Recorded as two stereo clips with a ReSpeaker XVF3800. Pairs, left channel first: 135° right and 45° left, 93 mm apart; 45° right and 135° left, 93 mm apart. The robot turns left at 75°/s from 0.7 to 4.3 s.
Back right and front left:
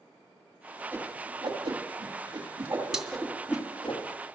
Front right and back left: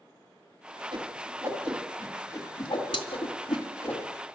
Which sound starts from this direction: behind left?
A whoosh, at 0.9 s.